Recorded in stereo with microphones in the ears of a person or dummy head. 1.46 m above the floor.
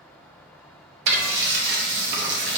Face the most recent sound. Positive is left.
turn(degrees=-70)  # may be behind; listen again after turning